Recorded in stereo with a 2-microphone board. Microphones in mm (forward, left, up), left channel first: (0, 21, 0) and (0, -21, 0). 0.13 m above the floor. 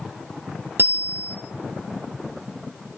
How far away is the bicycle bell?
About 2.5 m.